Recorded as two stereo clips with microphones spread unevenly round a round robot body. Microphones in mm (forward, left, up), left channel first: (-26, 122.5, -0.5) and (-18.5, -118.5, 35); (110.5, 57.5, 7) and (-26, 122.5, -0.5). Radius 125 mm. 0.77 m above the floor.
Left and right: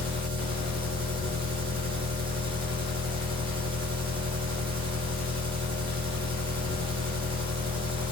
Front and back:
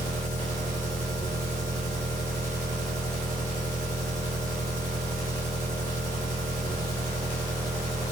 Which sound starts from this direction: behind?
An engine running, at 0.0 s.